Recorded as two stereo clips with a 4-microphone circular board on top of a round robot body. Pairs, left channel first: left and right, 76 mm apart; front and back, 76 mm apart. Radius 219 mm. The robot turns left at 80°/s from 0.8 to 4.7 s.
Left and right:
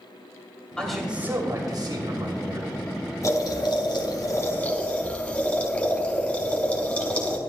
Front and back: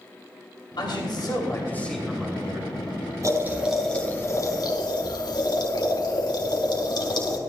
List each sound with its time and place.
0.8 s a man speaking: 10° left, 3 m; by 2.7 s 145° right, 3 m
3.2 s boiling: 135° left, 4 m; by 7.4 s 20° left, 4 m